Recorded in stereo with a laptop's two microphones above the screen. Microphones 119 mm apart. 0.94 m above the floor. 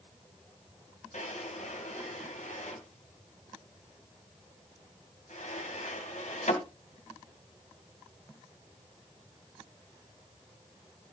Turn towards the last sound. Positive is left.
turn(degrees=80)